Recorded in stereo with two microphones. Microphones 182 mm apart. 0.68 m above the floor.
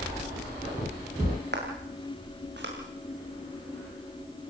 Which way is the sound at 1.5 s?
70° right (ahead or behind).